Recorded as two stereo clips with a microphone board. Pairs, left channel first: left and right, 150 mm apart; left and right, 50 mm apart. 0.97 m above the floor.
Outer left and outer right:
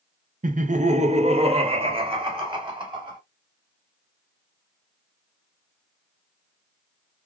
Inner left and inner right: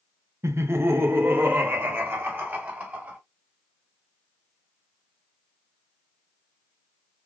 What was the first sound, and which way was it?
Laughter, 65° right (ahead or behind).